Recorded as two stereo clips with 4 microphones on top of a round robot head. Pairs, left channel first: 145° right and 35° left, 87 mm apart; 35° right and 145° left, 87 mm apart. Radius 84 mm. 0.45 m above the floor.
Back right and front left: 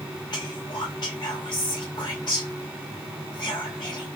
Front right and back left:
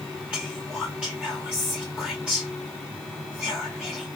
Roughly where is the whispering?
Behind right.